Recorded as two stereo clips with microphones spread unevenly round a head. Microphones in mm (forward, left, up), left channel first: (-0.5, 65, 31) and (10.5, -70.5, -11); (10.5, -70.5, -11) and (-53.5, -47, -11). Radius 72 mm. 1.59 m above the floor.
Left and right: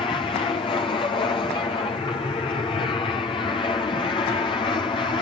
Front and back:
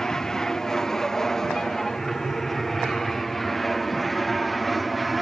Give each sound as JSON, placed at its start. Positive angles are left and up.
{"t": 0.0, "sound": "an aircraft", "azimuth_deg": 55}